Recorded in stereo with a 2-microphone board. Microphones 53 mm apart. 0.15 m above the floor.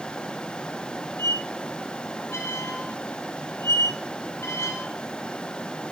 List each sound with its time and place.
1.2 s a squeak: 65° left (ahead or behind), 1.2 m